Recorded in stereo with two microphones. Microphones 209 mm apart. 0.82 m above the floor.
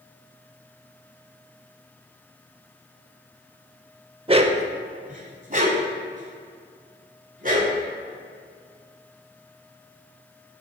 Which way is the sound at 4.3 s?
25° right (ahead or behind).